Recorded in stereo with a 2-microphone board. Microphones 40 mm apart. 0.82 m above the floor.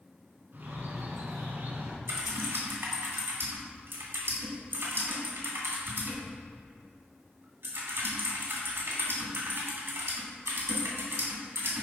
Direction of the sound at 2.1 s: 75° right (ahead or behind).